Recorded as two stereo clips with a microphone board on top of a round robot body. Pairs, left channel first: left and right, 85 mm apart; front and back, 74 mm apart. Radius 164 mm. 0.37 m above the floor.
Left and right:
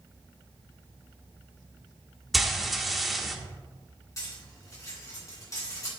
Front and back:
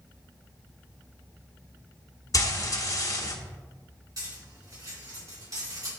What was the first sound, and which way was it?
Frying, straight ahead.